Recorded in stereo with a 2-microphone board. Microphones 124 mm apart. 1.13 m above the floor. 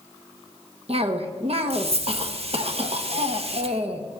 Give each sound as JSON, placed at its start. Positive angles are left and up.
{"t": 0.9, "sound": "a cough", "side_deg": -55, "distance_m": 1.0}